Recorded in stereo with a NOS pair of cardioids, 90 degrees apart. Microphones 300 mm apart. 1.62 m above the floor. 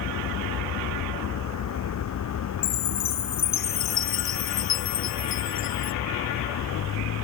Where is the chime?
65° left.